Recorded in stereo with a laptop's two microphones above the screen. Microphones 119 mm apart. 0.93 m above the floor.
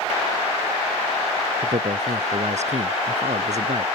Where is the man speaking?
70° right (ahead or behind); by 3.9 s 75° right (ahead or behind).